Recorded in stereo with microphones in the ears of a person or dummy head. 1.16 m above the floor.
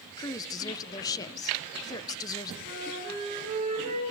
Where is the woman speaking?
15° left (ahead or behind), 0.5 m.